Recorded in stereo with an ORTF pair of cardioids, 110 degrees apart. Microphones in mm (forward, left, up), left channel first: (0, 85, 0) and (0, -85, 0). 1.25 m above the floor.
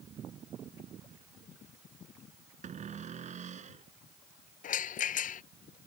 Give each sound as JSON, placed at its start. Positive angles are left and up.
{"t": 2.6, "sound": "a cupboard door", "azimuth_deg": -45}
{"t": 4.6, "sound": "a rattle", "azimuth_deg": 50}